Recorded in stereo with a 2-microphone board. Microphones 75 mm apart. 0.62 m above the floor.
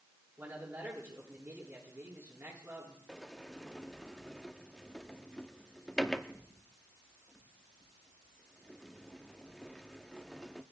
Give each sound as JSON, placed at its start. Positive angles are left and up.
{"t": 0.4, "sound": "a man speaking", "side_deg": -30, "distance_m": 10.0}
{"t": 3.1, "sound": "a sliding door", "side_deg": 5, "distance_m": 0.9}